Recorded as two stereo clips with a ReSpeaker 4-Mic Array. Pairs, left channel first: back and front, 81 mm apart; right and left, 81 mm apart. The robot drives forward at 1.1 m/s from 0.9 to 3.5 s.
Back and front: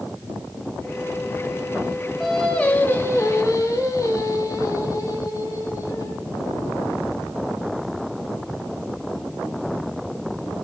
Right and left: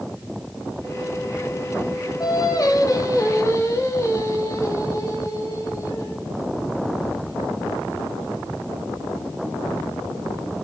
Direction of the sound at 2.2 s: 90° right.